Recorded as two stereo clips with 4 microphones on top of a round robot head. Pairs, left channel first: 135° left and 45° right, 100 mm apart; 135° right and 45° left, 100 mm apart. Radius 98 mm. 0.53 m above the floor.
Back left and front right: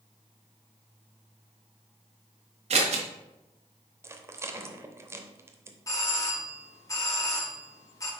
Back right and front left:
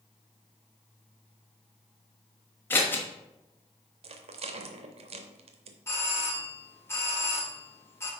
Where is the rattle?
20° left, 0.7 m.